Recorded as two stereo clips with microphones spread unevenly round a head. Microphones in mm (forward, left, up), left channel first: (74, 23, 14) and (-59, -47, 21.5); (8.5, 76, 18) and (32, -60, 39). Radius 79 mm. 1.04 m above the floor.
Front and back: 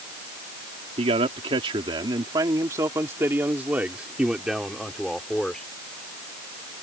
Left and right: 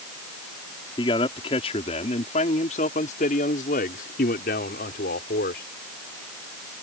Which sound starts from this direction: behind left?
A man speaking, at 1.0 s.